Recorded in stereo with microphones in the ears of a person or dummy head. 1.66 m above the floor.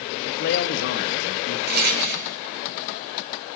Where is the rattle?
50° right (ahead or behind), 4.5 m.